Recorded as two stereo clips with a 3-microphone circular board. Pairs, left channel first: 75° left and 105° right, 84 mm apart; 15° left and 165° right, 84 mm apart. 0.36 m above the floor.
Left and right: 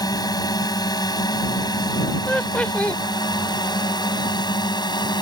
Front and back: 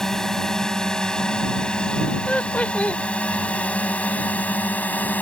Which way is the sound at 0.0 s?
100° left.